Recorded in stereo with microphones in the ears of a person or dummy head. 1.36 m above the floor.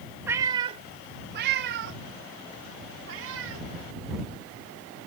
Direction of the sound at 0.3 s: 10° right (ahead or behind).